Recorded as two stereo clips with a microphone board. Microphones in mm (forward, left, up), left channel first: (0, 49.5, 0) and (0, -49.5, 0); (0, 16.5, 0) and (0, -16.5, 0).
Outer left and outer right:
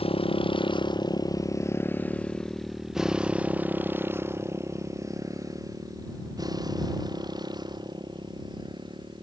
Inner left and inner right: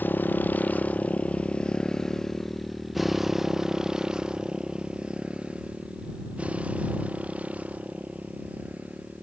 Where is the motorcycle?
65° left (ahead or behind); by 9.2 s 45° right (ahead or behind).